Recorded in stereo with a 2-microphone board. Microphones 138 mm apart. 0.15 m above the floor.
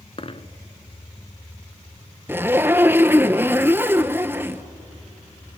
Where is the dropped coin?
45° left (ahead or behind), 0.8 m.